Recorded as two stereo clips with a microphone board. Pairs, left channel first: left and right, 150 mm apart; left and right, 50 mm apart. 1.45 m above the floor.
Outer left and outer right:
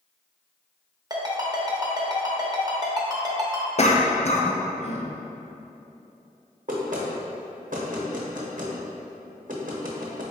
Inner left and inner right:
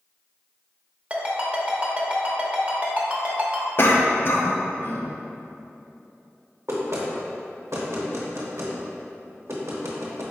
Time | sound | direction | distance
1.1 | a ringtone | 25° right (ahead or behind) | 0.7 m
3.8 | a cough | 50° left (ahead or behind) | 0.6 m
6.7 | knocking | 60° right (ahead or behind) | 0.8 m